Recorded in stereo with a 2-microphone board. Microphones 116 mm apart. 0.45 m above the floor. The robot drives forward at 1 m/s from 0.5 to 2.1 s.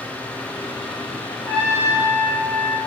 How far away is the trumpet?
About 6 m.